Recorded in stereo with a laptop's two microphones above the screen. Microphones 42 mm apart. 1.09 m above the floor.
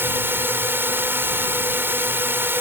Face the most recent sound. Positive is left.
turn(degrees=-60)  # may be behind; listen again after turning